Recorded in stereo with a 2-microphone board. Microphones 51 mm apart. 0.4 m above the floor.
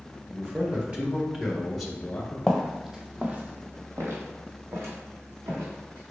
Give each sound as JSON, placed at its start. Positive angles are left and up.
{"t": 0.3, "sound": "a man speaking", "side_deg": -40, "distance_m": 1.2}
{"t": 2.5, "sound": "footsteps", "side_deg": 5, "distance_m": 0.9}